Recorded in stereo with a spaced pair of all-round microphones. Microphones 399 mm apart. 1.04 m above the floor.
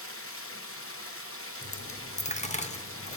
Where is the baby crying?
I don't hear a baby crying.